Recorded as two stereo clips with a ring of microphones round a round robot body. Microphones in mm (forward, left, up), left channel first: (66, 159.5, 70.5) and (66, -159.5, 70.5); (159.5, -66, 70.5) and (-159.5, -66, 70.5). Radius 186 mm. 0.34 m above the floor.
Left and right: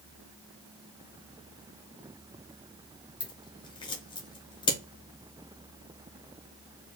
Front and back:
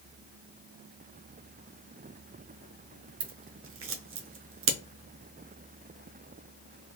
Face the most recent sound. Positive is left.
turn(degrees=160)